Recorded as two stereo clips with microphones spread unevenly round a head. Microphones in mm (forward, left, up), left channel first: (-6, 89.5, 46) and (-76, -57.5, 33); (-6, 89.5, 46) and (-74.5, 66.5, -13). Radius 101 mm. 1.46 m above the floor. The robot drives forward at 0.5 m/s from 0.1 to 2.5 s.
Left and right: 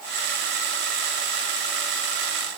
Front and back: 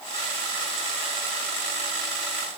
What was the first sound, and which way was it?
Only background noise.